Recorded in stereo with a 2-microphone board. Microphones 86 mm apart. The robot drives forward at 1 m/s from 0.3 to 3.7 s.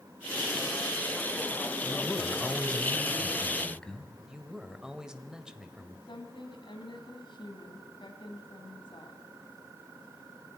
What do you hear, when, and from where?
1.8 s a man speaking: 20° left (ahead or behind), 1.4 m; by 4.1 s 10° left (ahead or behind), 3 m
4.3 s a man speaking: 10° right (ahead or behind), 1.6 m
6.1 s a woman speaking: 65° left (ahead or behind), 3 m